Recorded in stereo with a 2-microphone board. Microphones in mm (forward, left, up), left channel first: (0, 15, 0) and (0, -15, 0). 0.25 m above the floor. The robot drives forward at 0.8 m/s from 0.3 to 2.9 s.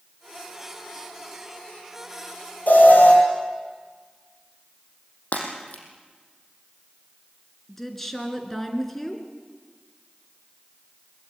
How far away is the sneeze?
I don't hear a sneeze.